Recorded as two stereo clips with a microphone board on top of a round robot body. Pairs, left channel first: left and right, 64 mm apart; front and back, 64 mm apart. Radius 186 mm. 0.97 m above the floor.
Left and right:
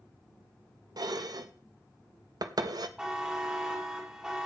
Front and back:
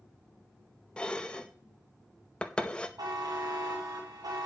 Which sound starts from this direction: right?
Dishes clattering, at 1.0 s.